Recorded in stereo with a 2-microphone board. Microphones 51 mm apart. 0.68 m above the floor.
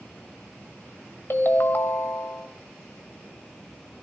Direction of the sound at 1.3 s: 55° left (ahead or behind).